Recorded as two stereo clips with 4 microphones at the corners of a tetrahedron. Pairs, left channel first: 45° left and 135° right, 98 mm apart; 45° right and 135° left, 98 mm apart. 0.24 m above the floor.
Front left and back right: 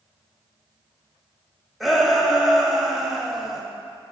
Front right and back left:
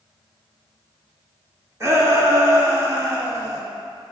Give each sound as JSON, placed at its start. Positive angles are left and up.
{"t": 1.8, "sound": "a shout", "azimuth_deg": 140, "distance_m": 1.0}